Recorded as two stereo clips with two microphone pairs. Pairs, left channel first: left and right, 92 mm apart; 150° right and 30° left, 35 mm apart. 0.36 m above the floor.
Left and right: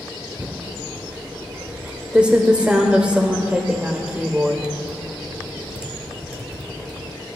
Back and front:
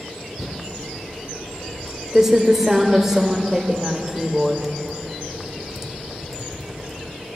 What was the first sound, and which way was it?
Typing on a keyboard, 25° right.